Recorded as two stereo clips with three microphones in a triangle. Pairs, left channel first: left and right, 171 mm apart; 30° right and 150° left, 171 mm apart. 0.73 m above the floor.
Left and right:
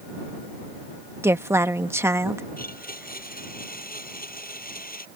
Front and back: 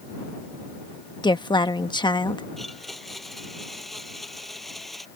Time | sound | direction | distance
1.2 | a woman speaking | 35° right | ?
2.6 | a blender | 60° left | ?